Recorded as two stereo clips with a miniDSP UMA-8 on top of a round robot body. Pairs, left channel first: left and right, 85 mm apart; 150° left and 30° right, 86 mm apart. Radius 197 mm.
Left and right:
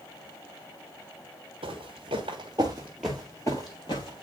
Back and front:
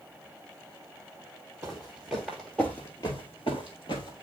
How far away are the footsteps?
About 1.3 m.